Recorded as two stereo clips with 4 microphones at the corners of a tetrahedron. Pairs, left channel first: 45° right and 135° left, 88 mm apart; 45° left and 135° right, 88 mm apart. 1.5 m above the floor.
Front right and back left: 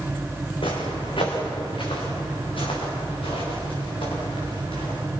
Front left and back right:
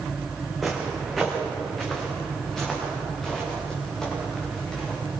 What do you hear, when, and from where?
0.6 s footsteps: 50° right, 5 m; by 5.0 s 40° right, 10.5 m